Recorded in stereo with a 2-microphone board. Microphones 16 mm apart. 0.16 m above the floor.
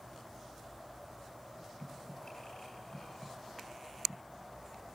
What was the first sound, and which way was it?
Breathing, 35° left (ahead or behind).